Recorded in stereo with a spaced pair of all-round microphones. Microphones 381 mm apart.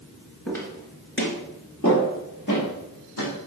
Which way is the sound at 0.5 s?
Centre (ahead or behind).